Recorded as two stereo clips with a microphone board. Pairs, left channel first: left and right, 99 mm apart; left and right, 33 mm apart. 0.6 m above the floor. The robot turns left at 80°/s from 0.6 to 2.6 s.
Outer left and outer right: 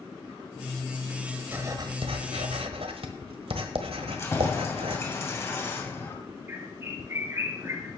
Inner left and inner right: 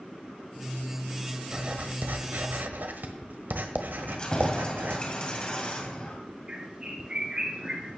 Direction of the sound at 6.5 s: 25° right (ahead or behind).